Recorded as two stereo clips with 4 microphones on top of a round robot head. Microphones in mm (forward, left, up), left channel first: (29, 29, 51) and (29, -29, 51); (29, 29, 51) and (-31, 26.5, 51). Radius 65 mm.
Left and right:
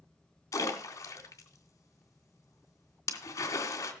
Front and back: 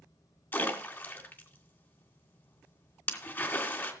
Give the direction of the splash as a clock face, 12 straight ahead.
10 o'clock.